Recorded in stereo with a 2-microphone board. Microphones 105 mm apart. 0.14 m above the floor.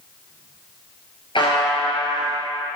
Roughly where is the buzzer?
Left.